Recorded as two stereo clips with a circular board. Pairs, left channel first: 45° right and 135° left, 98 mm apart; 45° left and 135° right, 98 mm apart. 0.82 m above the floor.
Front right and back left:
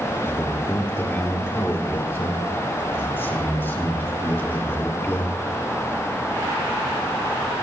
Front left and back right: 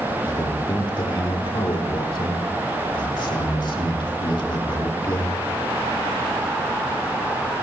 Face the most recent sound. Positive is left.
turn(degrees=20)